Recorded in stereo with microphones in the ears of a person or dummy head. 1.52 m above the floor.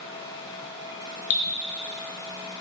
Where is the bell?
No bell in this recording.